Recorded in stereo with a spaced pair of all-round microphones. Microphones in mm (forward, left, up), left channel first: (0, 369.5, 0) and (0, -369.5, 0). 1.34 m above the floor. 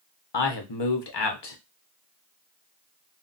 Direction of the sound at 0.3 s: 40° left (ahead or behind).